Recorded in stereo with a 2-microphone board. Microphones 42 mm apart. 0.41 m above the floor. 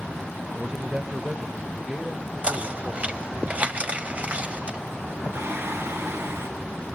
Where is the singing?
75° right (ahead or behind), 3 m.